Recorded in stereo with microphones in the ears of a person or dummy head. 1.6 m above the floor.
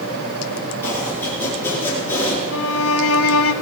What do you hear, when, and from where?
0.8 s chopping: 15° left (ahead or behind), 6.5 m
2.5 s a violin: 85° left, 0.9 m